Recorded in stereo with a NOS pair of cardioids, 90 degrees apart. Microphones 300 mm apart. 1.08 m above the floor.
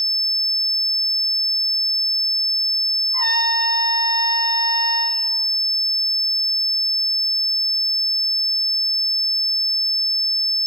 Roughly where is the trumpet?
Ahead.